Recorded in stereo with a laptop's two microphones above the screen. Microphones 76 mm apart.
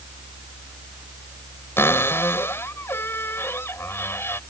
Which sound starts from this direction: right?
A fan, at 0.0 s.